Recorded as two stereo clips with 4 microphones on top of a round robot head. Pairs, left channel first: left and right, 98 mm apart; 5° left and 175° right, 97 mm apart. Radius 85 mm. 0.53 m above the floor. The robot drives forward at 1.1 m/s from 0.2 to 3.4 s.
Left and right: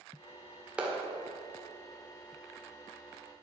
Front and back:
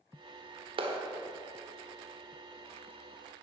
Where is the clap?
170° right, 1.7 m.